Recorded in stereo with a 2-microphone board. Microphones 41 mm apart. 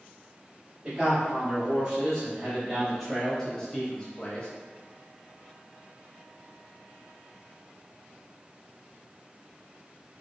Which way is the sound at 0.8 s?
20° right (ahead or behind).